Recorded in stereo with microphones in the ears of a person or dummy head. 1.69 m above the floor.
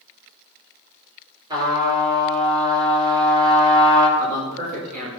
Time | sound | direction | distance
1.5 | a trumpet | 25° right (ahead or behind) | 5.5 m
4.2 | a man speaking | 50° right (ahead or behind) | 6 m